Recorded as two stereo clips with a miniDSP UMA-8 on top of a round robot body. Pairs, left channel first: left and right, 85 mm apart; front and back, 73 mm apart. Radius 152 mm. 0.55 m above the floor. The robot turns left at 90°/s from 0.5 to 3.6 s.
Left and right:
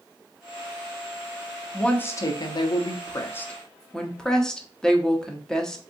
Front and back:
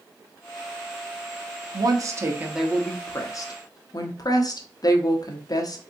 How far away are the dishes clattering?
No dishes clattering in this recording.